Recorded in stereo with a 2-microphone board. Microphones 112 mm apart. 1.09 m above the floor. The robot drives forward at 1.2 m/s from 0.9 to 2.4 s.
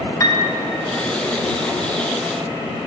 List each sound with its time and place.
0.2 s a piano: 30° left (ahead or behind), 0.5 m